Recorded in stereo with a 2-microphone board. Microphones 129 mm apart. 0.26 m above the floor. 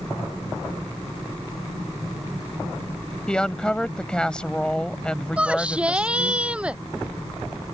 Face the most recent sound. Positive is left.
turn(degrees=-10)  # may be behind; listen again after turning